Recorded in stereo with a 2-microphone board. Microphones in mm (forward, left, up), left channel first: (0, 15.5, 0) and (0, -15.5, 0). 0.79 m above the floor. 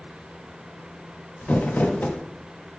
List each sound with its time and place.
1.4 s crumpling: 60° left (ahead or behind), 0.5 m